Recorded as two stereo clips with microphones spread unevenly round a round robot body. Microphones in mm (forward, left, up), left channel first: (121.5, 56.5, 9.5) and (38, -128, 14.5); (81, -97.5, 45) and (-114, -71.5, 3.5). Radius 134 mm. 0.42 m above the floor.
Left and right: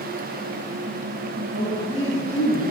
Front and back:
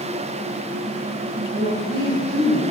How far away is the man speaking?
About 2.5 m.